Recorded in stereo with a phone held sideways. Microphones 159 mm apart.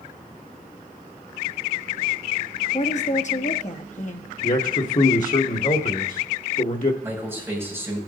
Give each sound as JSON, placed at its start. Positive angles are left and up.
{"t": 2.7, "sound": "a woman speaking", "side_deg": 50, "distance_m": 1.0}
{"t": 4.4, "sound": "a man speaking", "side_deg": 55, "distance_m": 1.1}
{"t": 7.0, "sound": "a man speaking", "side_deg": -15, "distance_m": 6.0}